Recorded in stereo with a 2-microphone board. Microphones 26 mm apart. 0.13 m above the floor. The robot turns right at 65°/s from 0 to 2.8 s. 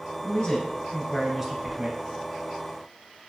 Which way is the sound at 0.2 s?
115° left.